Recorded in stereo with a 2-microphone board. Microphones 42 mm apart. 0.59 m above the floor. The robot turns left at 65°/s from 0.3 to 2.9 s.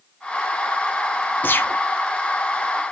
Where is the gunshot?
45° left (ahead or behind), 1.0 m; by 1.8 s 65° left (ahead or behind), 1.0 m.